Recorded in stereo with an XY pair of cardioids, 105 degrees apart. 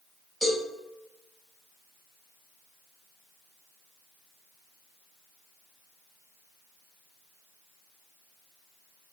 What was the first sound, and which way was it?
A cowbell, 5° right.